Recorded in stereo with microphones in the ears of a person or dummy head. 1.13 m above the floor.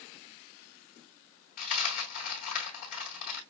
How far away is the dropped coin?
About 3 m.